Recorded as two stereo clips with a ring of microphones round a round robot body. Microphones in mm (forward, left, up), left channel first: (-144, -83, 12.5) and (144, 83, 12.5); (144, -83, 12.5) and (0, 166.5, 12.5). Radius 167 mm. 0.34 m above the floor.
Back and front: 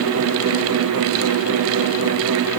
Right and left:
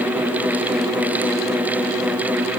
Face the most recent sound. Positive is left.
No sound to turn to.